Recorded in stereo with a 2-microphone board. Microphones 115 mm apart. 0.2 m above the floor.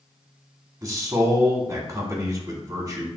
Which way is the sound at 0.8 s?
30° right (ahead or behind).